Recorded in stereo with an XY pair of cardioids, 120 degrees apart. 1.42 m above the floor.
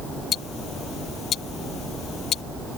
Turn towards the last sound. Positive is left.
turn(degrees=50)